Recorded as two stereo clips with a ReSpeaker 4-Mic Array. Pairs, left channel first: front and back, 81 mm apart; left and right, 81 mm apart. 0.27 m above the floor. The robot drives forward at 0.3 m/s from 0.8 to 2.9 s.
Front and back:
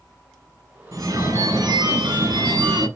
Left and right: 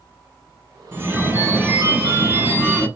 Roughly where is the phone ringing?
Behind right.